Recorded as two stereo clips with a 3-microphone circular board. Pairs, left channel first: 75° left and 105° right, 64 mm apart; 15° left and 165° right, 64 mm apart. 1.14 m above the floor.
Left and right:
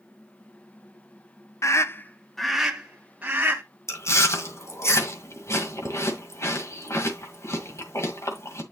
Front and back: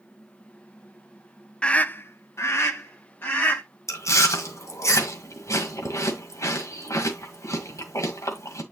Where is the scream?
85° left, 0.9 m; by 3.6 s 40° right, 2 m.